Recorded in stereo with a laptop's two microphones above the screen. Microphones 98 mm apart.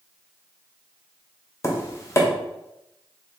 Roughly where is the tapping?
Left.